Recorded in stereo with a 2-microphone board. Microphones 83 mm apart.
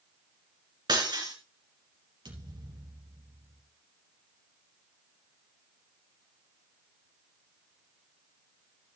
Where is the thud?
70° right (ahead or behind), 4 m.